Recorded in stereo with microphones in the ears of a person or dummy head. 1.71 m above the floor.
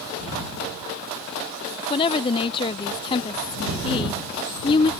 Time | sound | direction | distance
1.9 | a woman speaking | 25° left (ahead or behind) | ?